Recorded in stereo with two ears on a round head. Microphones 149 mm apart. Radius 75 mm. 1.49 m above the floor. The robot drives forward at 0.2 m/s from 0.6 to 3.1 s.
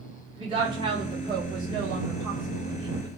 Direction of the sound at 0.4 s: 30° right (ahead or behind).